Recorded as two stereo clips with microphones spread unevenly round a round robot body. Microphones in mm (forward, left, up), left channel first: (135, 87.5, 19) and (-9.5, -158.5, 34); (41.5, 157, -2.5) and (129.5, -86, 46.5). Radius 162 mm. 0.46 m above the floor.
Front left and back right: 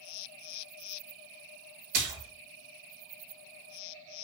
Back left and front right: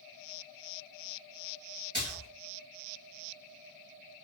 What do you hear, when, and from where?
1.9 s a splash: 145° right, 0.5 m